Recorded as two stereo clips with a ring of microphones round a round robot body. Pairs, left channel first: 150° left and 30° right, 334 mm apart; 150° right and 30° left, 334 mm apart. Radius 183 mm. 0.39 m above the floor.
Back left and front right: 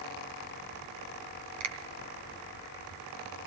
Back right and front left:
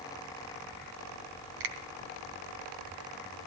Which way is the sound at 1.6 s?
10° left.